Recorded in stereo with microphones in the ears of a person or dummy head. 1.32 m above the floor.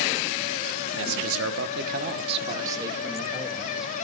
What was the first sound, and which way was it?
A man speaking, 65° right (ahead or behind).